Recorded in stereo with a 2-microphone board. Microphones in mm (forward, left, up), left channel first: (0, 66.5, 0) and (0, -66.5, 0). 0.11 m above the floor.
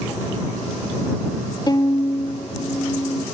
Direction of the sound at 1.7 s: 35° left (ahead or behind).